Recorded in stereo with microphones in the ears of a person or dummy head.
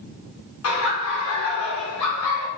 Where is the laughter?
85° left, 1.1 m.